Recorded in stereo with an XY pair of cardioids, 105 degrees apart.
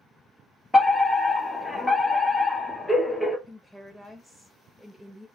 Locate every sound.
0.7 s a fire alarm: 10° left, 1.5 m
3.5 s a woman speaking: 10° right, 0.9 m